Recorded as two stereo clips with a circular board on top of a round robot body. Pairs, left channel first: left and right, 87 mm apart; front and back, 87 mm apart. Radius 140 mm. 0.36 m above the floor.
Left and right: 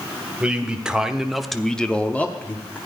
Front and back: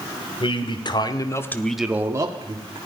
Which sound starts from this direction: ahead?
A man speaking, at 0.4 s.